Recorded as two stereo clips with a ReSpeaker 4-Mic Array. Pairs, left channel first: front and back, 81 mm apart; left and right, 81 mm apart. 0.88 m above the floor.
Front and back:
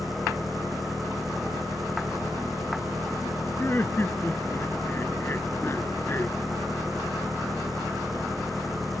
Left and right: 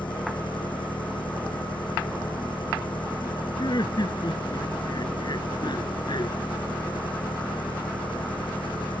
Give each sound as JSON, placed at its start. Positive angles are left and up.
{"t": 0.0, "sound": "an engine running", "azimuth_deg": 90}
{"t": 3.6, "sound": "laughter", "azimuth_deg": 65}